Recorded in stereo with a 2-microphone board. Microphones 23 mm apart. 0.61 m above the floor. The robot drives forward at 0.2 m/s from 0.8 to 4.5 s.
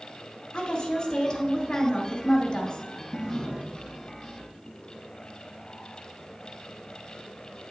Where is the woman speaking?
35° left (ahead or behind), 1.5 m.